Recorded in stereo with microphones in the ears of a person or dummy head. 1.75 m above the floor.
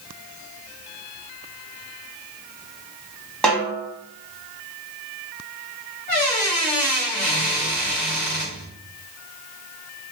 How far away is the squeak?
About 0.8 m.